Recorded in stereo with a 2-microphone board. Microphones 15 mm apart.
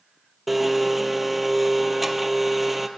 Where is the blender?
10° right (ahead or behind), 1.3 m.